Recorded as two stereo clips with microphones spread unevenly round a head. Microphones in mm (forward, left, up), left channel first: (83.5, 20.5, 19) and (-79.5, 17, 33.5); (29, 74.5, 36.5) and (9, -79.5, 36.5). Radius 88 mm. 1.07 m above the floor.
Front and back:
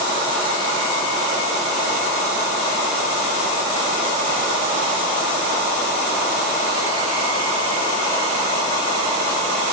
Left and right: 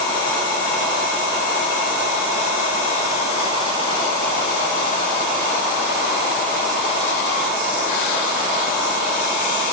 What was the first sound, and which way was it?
Only background noise.